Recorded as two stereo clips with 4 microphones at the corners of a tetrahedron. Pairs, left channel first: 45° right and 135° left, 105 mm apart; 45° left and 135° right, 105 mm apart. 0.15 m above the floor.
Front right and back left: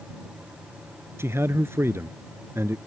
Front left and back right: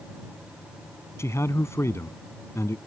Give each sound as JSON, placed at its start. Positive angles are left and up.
{"t": 1.2, "sound": "a man speaking", "azimuth_deg": 90}